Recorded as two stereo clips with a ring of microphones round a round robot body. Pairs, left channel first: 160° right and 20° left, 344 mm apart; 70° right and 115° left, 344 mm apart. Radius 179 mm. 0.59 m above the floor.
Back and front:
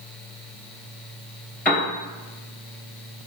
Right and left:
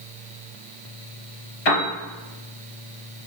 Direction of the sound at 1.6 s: 70° right.